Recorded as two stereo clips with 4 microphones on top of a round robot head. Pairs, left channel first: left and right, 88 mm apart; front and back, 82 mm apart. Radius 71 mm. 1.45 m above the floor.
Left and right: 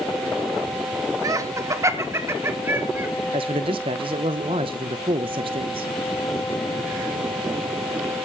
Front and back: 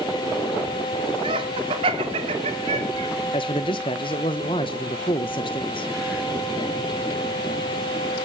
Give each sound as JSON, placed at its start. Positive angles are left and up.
{"t": 1.2, "sound": "laughter", "azimuth_deg": -140, "distance_m": 3.0}
{"t": 3.3, "sound": "a man speaking", "azimuth_deg": -45, "distance_m": 1.2}